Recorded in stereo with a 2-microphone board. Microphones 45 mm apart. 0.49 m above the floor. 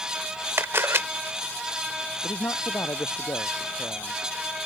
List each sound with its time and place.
0.6 s a camera shutter: 60° right (ahead or behind)
2.2 s a man speaking: 85° left